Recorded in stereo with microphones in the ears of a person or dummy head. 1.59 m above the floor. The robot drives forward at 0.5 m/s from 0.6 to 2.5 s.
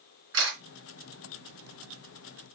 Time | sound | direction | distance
0.3 | a camera shutter | 55° right (ahead or behind) | 3 m